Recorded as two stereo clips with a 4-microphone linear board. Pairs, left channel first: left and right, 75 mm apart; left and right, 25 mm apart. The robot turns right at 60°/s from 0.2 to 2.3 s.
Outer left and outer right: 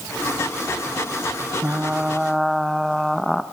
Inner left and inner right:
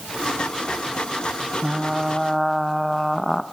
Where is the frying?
40° right, 1.0 m; by 3.4 s straight ahead, 1.0 m.